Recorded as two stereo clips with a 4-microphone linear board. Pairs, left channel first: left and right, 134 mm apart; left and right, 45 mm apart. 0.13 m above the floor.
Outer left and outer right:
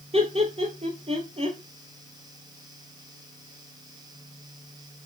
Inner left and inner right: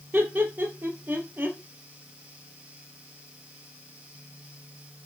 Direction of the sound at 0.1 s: 45° right (ahead or behind).